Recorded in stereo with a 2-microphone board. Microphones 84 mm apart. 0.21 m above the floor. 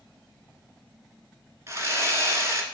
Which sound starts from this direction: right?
Sawing, at 1.7 s.